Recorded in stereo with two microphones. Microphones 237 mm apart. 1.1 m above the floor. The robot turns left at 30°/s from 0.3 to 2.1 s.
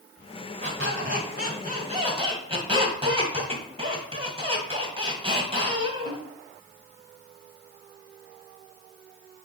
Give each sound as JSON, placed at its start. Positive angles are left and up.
{"t": 0.6, "sound": "a squeak", "azimuth_deg": -110, "distance_m": 1.7}